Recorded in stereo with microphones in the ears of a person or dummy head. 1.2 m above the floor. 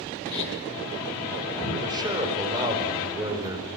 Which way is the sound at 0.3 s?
10° left (ahead or behind).